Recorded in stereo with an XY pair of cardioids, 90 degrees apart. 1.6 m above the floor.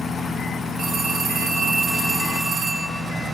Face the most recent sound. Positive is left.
turn(degrees=-65)